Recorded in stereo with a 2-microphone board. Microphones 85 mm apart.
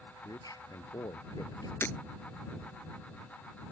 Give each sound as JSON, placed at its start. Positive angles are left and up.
{"t": 0.2, "sound": "a man speaking", "side_deg": 50}
{"t": 1.8, "sound": "breaking glass", "side_deg": 30}